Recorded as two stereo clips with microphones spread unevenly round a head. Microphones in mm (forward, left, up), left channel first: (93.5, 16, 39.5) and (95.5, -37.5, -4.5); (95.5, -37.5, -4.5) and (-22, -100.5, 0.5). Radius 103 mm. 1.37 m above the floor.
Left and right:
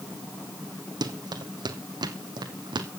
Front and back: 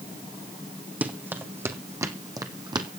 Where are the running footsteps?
75° right, 2.5 m; by 2.9 s 100° right, 2.5 m.